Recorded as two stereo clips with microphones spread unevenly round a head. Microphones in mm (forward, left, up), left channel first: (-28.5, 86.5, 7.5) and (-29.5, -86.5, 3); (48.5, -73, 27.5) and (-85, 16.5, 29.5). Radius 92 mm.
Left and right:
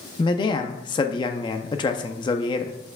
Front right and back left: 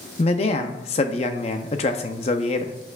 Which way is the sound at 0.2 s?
25° left.